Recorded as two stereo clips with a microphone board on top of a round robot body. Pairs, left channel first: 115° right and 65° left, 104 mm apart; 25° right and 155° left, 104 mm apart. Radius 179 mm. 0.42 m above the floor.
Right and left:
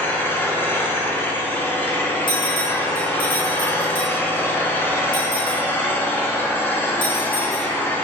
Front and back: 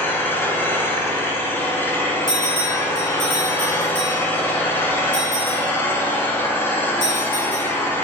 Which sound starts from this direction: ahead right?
An engine running, at 0.0 s.